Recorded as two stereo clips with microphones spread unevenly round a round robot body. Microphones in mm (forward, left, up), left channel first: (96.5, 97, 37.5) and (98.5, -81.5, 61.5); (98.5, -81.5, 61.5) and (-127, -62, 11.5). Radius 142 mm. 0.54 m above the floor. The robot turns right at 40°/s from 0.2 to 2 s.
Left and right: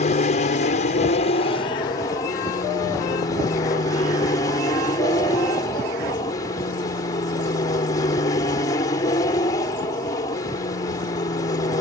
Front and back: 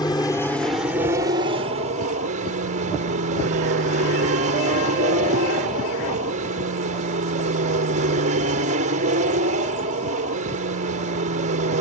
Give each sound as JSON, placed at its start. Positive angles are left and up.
{"t": 0.0, "sound": "an aircraft", "azimuth_deg": 75}